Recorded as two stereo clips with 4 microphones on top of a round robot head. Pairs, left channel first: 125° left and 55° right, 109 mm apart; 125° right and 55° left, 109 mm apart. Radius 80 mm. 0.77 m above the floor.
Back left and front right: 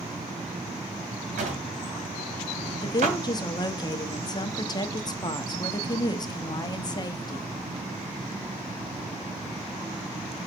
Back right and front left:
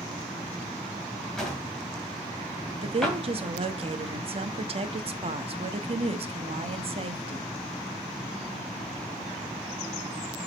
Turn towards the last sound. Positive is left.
turn(degrees=80)